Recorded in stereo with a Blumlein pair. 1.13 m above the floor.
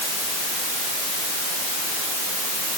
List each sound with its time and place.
Only background noise.